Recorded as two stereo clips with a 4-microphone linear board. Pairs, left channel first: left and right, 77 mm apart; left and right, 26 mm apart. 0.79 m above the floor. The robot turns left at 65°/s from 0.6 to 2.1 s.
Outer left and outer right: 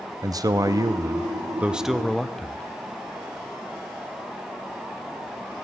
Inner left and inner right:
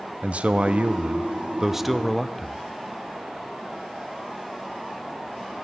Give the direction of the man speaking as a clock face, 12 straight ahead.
3 o'clock.